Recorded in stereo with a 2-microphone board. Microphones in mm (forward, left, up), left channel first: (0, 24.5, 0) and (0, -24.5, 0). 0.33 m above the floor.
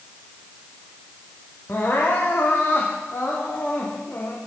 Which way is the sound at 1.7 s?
40° left (ahead or behind).